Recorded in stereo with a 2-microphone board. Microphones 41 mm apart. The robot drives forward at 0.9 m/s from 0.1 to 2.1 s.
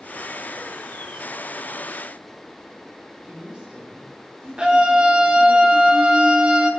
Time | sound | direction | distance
3.2 | a woman speaking | 25° right (ahead or behind) | 6 m
4.6 | a scream | 25° right (ahead or behind) | 2.5 m